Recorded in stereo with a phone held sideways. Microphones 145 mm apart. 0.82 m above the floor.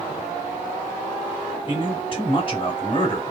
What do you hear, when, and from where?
1.7 s a man speaking: 40° left (ahead or behind), 2.0 m